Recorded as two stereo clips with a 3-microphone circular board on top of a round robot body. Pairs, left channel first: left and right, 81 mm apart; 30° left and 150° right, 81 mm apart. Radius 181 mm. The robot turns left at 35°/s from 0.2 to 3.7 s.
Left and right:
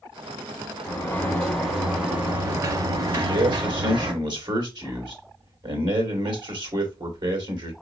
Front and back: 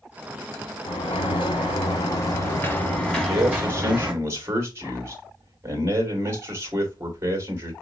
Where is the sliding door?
30° left, 1.2 m; by 4.1 s 70° right, 1.2 m.